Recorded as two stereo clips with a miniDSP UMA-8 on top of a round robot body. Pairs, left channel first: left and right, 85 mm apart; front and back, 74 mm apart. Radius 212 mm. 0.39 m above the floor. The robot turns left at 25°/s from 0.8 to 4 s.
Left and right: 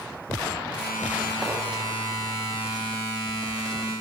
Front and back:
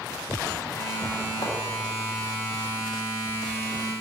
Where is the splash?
Straight ahead, 3.5 m.